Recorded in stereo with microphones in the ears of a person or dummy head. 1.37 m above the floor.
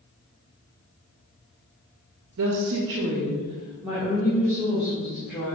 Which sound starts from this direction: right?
A woman speaking, at 2.4 s.